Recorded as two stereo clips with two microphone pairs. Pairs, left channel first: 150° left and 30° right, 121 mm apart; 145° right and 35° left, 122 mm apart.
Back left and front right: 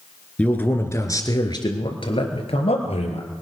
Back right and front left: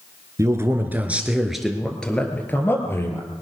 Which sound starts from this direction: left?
A man speaking, at 0.4 s.